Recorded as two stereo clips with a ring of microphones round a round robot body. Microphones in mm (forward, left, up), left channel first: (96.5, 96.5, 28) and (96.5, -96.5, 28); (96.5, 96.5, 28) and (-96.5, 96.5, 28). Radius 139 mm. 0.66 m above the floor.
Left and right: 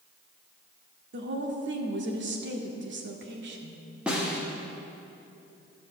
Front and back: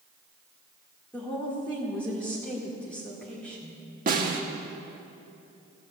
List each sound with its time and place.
1.1 s a woman speaking: 85° right, 1.8 m
4.1 s a snare drum: 175° right, 1.4 m